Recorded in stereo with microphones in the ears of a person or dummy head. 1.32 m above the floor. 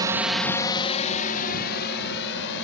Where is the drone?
15° right (ahead or behind); by 2.6 s 70° left (ahead or behind).